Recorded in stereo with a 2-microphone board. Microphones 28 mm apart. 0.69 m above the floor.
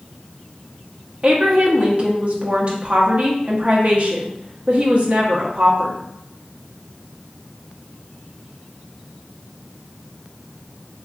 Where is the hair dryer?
No hair dryer in this recording.